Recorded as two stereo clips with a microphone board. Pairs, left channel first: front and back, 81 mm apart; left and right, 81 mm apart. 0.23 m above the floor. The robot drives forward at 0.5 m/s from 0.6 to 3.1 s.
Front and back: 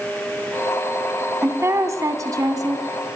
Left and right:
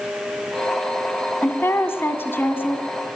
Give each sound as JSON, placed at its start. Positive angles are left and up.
{"t": 1.4, "sound": "a woman speaking", "azimuth_deg": 140, "distance_m": 1.8}